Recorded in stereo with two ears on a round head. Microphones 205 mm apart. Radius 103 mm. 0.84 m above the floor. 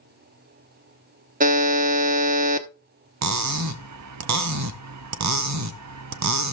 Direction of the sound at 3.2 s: 80° right.